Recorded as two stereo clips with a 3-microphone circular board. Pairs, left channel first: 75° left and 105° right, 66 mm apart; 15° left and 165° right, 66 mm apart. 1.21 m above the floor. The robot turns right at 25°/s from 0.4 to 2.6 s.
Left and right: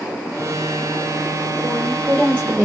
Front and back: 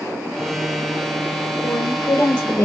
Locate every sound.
1.6 s a woman speaking: 45° right, 1.1 m; by 2.7 s 20° right, 1.1 m